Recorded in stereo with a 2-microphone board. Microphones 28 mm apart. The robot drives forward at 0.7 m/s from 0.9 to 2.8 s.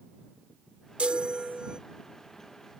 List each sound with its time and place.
1.0 s a chime: 50° right (ahead or behind); by 1.8 s 40° right (ahead or behind)